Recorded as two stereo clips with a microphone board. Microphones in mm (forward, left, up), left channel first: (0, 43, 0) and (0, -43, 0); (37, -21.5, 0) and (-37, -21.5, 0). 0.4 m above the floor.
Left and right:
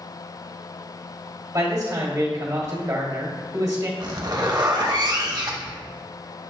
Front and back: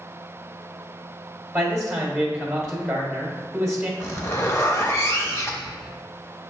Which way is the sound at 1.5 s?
95° right.